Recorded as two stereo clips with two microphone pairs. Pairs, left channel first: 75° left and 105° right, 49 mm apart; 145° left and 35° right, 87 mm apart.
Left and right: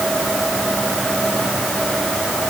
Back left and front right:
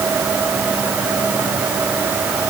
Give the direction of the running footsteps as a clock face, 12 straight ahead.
I don't hear running footsteps.